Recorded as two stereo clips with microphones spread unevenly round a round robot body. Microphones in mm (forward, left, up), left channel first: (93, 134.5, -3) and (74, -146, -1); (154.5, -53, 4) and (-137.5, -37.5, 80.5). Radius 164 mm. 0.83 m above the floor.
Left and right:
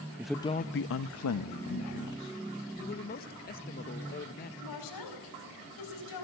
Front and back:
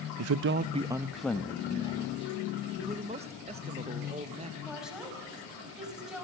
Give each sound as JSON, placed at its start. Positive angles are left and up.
{"t": 0.2, "sound": "a man speaking", "azimuth_deg": -170, "distance_m": 0.5}
{"t": 2.8, "sound": "a man speaking", "azimuth_deg": 100, "distance_m": 0.8}
{"t": 4.6, "sound": "a woman speaking", "azimuth_deg": 90, "distance_m": 5.0}